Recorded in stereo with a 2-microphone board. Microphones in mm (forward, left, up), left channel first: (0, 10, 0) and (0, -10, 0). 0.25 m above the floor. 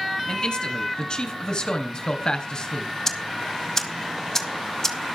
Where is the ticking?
20° left (ahead or behind), 1.9 m.